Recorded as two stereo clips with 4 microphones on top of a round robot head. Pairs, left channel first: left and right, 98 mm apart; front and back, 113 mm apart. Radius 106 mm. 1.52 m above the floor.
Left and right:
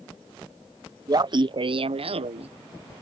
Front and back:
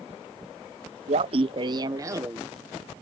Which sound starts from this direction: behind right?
Laughter, at 1.1 s.